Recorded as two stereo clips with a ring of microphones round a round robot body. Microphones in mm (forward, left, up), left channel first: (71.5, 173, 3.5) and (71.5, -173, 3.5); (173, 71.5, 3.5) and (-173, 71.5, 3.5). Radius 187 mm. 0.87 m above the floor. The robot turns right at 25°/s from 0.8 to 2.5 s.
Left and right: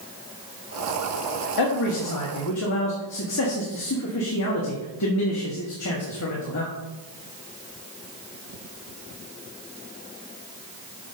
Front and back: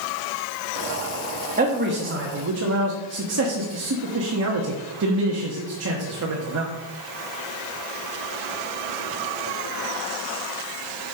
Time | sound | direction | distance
1.6 | a man speaking | 115° left | 1.3 m